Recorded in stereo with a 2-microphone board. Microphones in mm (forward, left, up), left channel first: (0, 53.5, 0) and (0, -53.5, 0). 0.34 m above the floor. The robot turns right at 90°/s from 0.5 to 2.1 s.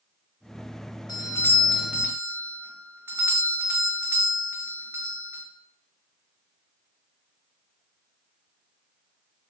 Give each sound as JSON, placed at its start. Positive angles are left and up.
{"t": 1.1, "sound": "a doorbell", "azimuth_deg": 120, "distance_m": 2.0}